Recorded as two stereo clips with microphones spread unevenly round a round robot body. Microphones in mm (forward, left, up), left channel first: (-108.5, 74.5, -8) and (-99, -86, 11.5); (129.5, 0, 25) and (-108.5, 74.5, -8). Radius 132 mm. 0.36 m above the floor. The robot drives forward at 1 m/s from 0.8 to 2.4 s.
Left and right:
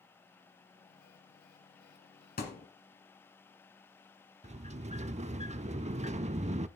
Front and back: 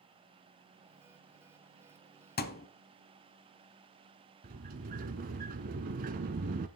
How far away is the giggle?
No giggle in this recording.